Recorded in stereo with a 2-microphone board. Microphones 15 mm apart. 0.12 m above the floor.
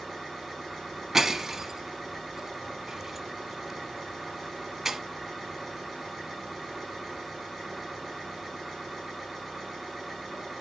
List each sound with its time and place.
0.0 s an engine running: 25° right (ahead or behind), 7.5 m
1.1 s breaking glass: 20° right (ahead or behind), 1.0 m